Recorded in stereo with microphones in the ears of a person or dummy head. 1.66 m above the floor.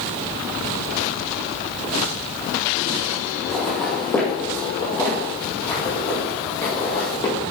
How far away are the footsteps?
About 2 m.